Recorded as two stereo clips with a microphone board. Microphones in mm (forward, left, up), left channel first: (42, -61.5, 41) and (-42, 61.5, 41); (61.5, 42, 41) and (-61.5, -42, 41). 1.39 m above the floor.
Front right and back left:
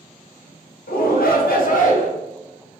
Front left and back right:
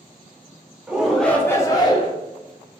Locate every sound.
0.9 s a shout: 65° right, 0.8 m; by 2.1 s 20° right, 0.9 m